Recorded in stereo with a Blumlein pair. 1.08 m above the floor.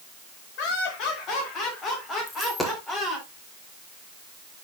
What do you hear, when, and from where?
0.6 s laughter: 40° left, 3 m; by 3.3 s 5° left, 3.5 m
2.3 s a dropped coin: 10° left, 1.3 m